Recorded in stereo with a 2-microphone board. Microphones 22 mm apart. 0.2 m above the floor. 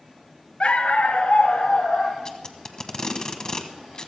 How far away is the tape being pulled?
About 1.1 m.